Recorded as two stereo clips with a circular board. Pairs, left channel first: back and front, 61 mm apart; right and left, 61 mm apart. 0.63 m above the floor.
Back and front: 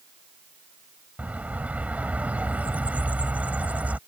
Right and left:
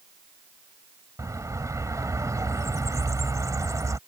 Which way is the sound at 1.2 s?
65° left.